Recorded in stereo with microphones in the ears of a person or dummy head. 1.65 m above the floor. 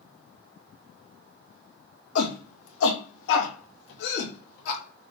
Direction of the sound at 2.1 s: 80° left.